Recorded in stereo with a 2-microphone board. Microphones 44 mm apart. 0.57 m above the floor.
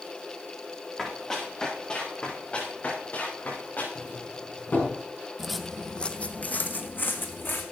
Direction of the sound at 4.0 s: 50° left (ahead or behind).